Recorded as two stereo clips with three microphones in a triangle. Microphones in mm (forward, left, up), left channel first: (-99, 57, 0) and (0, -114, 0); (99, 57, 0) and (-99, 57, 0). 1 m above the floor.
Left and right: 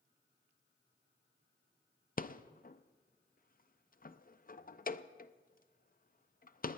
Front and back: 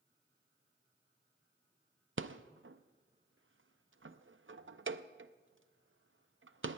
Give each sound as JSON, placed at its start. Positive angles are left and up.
{"t": 2.2, "sound": "a rattle", "azimuth_deg": 170, "distance_m": 0.5}